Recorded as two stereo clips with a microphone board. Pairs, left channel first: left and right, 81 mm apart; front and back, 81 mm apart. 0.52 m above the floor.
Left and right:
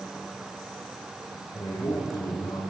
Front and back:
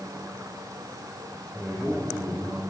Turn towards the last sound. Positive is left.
turn(degrees=115)